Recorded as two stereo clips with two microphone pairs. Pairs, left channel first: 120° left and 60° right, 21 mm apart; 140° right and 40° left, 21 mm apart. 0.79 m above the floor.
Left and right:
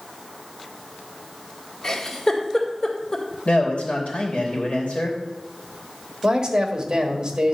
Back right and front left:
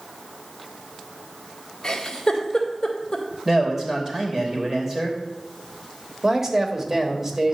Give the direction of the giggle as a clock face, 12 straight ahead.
7 o'clock.